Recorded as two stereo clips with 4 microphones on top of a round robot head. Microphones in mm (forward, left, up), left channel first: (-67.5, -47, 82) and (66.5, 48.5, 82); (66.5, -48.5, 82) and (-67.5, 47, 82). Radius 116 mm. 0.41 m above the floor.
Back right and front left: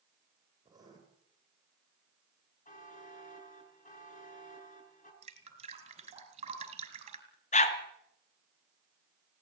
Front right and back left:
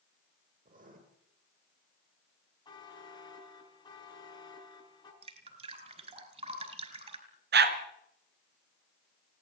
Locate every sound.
0.7 s writing: 105° left, 9 m
2.6 s a buzzer: 100° right, 6 m
5.2 s dripping: 90° left, 5 m
7.5 s a dog barking: 165° left, 2.5 m